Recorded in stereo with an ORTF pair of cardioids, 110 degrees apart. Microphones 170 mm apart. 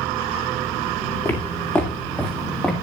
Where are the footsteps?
15° left, 4.5 m; by 2.7 s 5° left, 4 m.